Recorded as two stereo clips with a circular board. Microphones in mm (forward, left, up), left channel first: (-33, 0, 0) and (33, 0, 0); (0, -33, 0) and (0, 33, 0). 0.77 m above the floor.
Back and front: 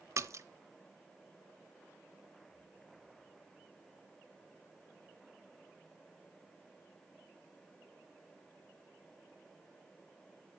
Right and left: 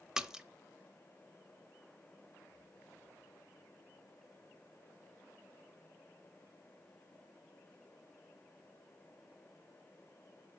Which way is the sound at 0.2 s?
15° left.